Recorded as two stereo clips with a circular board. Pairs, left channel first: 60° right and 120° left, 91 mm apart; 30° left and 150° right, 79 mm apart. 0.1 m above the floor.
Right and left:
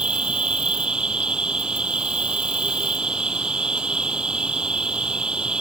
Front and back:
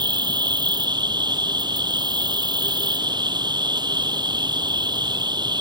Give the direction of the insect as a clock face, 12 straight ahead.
5 o'clock.